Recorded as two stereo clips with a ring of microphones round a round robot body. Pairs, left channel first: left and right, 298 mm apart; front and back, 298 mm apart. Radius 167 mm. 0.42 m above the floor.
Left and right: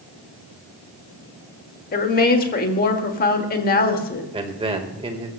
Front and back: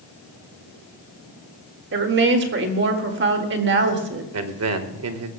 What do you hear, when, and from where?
1.9 s a woman speaking: 140° left, 1.7 m
4.3 s a man speaking: 160° right, 1.4 m